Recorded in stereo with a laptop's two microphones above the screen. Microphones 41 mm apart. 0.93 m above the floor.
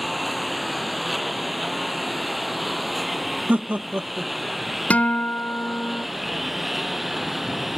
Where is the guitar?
40° left (ahead or behind).